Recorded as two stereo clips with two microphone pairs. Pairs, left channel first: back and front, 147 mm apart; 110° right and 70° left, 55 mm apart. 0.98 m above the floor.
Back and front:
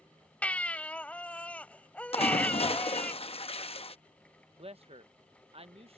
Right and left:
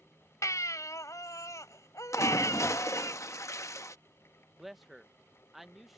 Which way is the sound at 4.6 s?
15° right.